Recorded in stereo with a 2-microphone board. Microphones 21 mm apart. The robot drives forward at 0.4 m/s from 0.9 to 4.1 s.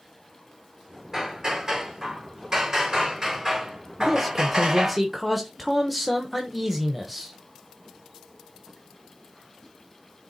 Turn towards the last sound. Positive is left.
turn(degrees=-5)  # may be behind; listen again after turning